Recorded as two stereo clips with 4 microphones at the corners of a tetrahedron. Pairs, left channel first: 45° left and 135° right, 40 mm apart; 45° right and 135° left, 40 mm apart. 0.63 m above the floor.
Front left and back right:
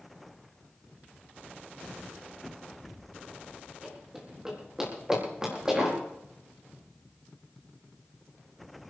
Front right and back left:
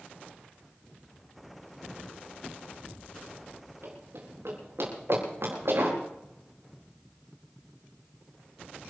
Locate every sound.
3.8 s running footsteps: 145° left, 7.5 m; by 6.0 s 150° left, 9 m